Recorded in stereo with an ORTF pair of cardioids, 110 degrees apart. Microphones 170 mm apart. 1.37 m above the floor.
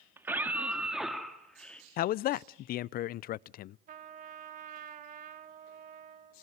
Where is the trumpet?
55° right, 2 m.